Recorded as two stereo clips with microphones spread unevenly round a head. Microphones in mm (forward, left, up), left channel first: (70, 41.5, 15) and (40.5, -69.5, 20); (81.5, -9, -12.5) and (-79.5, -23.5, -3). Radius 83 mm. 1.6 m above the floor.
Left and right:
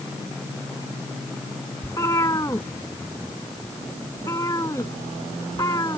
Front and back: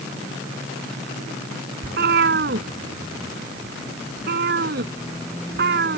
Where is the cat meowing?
150° left.